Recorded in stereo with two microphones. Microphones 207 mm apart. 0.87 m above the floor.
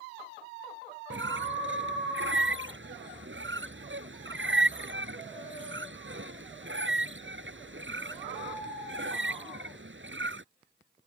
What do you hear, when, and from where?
1.1 s a squeak: 65° right (ahead or behind)